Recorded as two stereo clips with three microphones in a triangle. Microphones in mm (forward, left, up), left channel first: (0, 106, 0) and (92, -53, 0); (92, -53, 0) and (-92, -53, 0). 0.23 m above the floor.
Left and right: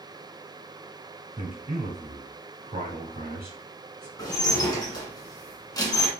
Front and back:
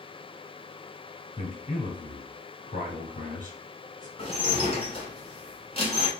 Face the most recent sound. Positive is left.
turn(degrees=55)